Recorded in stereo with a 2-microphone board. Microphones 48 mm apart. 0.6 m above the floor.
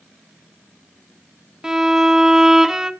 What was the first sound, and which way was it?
A violin, 10° right (ahead or behind).